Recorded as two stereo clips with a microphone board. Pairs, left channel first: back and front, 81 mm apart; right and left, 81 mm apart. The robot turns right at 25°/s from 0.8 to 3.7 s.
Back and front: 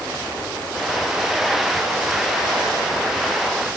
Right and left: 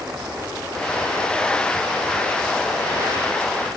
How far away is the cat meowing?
No cat meowing in this recording.